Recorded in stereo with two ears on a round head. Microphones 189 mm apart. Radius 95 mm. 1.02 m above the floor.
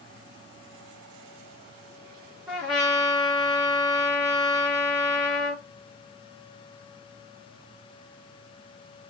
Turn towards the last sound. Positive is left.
turn(degrees=-5)  # may be behind; listen again after turning